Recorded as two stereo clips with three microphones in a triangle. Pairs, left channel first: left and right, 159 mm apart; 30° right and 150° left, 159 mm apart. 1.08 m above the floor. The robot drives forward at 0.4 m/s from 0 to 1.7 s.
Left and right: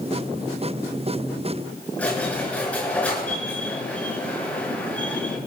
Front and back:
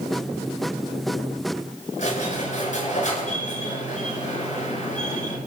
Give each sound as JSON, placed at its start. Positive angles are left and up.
{"t": 2.0, "sound": "a squeak", "azimuth_deg": 10, "distance_m": 6.5}